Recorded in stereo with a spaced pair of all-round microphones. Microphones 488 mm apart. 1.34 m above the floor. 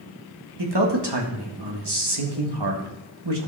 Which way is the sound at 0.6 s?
55° right (ahead or behind).